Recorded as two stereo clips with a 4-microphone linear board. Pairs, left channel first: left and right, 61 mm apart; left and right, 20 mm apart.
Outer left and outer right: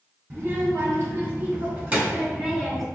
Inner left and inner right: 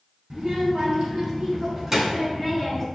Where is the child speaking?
45° right (ahead or behind), 1.6 m; by 2.9 s 5° right (ahead or behind), 1.1 m.